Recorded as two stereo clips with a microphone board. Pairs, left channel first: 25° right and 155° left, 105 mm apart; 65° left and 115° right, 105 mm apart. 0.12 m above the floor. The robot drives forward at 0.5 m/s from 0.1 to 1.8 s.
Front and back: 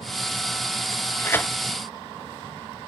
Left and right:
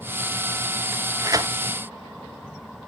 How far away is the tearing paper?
About 0.7 m.